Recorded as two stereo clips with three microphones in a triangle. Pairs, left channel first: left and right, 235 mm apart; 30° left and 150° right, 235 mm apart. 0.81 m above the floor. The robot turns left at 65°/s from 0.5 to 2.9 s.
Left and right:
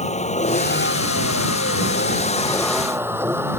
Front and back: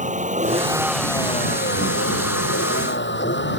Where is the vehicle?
150° left; by 3.6 s 10° right.